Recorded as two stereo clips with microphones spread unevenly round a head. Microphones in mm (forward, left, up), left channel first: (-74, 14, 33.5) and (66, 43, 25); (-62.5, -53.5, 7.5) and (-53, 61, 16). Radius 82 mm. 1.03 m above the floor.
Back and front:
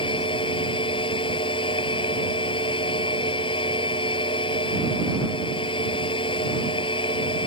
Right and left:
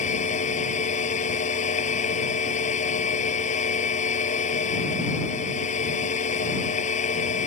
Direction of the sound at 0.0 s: 110° right.